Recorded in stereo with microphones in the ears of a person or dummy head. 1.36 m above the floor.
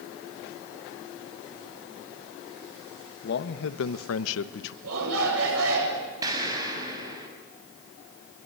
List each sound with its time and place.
3.2 s a man speaking: 50° left (ahead or behind), 1.4 m; by 4.7 s 70° left (ahead or behind), 1.1 m
4.8 s a shout: 85° right, 7.5 m
6.2 s an explosion: 20° right (ahead or behind), 6 m